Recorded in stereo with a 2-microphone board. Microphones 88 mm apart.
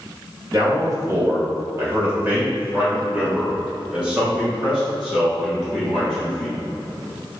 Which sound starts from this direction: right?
A man speaking, at 0.5 s.